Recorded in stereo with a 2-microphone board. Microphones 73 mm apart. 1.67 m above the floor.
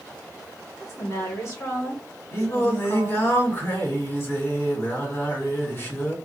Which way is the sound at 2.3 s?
35° left (ahead or behind).